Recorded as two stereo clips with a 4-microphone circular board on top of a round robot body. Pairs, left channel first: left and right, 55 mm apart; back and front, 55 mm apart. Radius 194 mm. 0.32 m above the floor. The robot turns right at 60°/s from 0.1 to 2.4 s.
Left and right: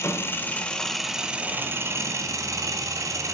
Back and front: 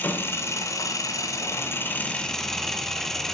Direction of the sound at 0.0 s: 125° left.